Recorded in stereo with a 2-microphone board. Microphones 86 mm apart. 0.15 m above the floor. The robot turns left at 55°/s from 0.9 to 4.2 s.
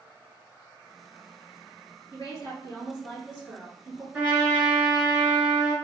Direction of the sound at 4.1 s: 15° right (ahead or behind).